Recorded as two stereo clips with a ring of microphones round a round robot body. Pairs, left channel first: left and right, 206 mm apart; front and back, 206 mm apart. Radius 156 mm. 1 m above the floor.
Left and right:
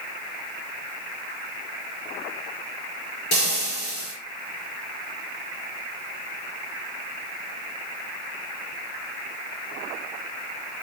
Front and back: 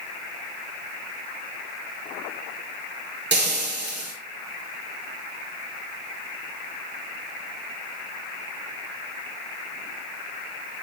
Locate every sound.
3.3 s frying: 150° left, 5 m